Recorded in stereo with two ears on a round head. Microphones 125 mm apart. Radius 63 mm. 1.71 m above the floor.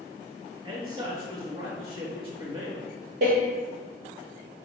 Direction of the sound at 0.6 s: 40° right (ahead or behind).